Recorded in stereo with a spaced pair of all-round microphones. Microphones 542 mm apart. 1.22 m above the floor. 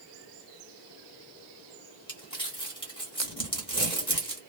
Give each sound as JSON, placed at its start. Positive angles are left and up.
{"t": 2.1, "sound": "crumpling", "side_deg": 10, "distance_m": 1.1}